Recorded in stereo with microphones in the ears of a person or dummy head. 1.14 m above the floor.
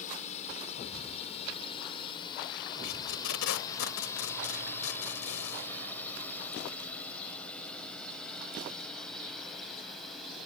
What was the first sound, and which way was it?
A drone, 40° left (ahead or behind).